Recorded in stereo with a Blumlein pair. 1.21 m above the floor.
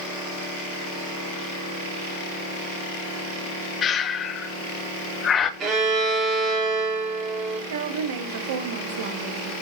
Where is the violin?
30° right, 1.9 m.